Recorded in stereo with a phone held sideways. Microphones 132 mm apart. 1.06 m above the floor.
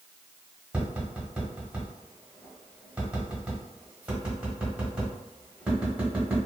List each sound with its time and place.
0.7 s tapping: 10° right (ahead or behind), 1.1 m